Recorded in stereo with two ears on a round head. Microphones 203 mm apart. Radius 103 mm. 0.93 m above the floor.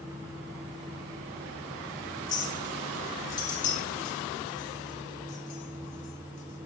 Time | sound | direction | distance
2.3 | a clink | 35° left (ahead or behind) | 3.5 m